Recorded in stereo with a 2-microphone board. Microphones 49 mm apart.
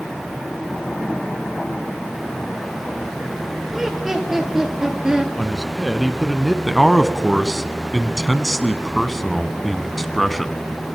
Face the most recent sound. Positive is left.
turn(degrees=0)  # may be behind; listen again after turning